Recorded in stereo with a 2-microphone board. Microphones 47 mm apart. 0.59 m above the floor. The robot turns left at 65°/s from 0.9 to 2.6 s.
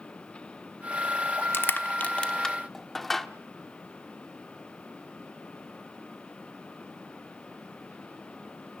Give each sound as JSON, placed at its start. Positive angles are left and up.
{"t": 1.5, "sound": "crushing", "side_deg": 55, "distance_m": 1.0}